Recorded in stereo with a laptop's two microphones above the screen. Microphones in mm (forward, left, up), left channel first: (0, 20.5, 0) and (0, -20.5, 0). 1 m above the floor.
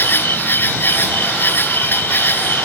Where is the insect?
60° left (ahead or behind).